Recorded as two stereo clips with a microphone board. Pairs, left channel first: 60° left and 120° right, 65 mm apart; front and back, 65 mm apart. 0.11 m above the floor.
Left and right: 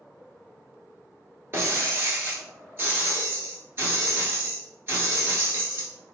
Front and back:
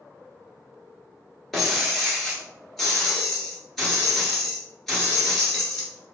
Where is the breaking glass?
90° right, 1.1 m.